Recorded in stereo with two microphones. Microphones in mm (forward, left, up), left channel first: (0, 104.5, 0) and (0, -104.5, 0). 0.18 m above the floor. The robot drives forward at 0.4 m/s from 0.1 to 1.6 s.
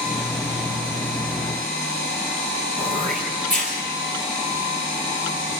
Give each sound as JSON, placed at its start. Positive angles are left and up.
{"t": 2.8, "sound": "throat clearing", "side_deg": -40, "distance_m": 5.0}